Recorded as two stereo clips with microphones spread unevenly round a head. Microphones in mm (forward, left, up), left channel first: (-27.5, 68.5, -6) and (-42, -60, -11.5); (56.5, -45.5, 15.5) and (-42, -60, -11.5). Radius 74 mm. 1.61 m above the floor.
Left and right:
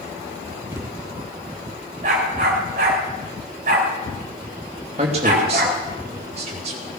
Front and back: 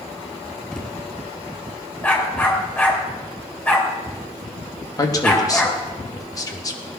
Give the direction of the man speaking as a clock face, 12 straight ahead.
1 o'clock.